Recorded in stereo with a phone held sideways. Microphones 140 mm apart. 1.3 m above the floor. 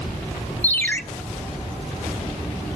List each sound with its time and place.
0.6 s a ringtone: 15° left (ahead or behind), 1.3 m